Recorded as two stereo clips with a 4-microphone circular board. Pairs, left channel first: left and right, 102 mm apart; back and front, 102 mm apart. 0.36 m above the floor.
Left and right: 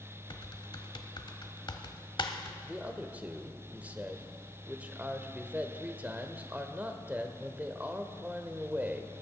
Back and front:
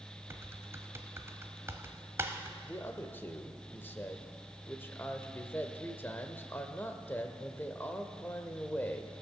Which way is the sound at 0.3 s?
60° left.